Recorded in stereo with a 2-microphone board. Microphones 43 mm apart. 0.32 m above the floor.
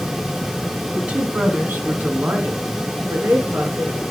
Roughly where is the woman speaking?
Right.